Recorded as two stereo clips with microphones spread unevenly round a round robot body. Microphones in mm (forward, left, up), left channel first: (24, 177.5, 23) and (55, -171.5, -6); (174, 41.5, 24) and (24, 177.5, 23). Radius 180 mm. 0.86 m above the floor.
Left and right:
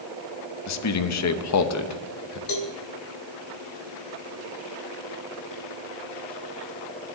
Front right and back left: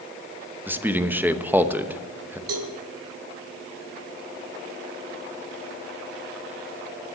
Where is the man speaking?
60° left, 1.0 m.